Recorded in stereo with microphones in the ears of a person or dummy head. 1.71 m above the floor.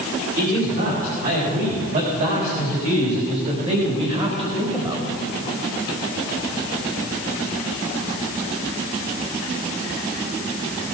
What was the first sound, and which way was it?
A man speaking, 50° right (ahead or behind).